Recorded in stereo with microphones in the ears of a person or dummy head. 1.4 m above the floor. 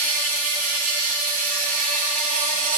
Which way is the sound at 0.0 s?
45° right (ahead or behind).